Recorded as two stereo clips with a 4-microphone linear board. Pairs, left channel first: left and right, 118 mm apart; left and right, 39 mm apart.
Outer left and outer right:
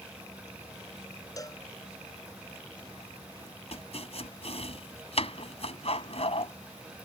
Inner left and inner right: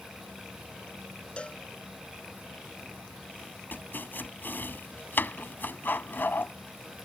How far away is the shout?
No shout in this recording.